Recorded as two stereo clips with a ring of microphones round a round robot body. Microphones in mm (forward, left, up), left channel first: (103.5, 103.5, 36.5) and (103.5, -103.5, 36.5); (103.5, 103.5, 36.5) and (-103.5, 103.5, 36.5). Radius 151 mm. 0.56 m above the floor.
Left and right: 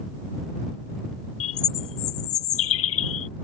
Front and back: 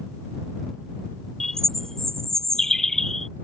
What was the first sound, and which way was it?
A bird, 90° left.